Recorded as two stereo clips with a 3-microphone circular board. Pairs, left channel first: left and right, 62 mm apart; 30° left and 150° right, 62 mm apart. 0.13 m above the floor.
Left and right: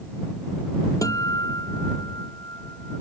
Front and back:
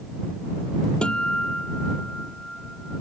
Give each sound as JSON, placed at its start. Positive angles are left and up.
{"t": 1.0, "sound": "a guitar", "azimuth_deg": 105}